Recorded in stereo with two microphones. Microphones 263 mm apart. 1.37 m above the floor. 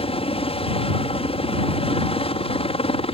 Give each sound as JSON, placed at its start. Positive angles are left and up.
{"t": 0.0, "sound": "a helicopter", "side_deg": 20}